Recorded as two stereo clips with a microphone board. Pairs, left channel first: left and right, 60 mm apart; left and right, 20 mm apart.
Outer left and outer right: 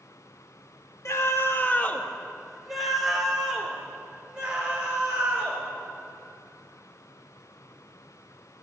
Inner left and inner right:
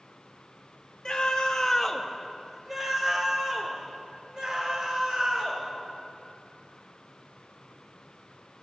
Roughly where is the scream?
Left.